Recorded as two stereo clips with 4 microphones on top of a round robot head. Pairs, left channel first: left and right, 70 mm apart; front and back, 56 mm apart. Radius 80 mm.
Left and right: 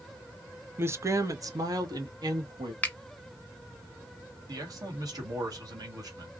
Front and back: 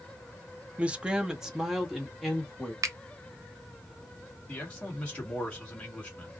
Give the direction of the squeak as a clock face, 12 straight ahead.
No squeak in this recording.